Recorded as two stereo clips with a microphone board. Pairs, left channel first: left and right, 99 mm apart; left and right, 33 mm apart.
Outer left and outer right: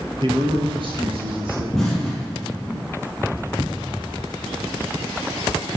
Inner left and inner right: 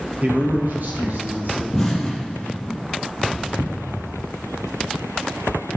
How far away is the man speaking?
About 2 m.